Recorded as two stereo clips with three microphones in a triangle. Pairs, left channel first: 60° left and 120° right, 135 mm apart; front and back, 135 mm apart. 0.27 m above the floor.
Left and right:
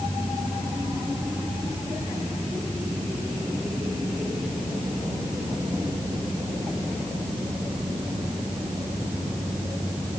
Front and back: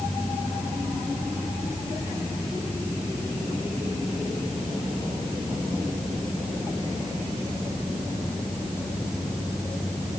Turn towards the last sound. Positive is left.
No sound to turn to.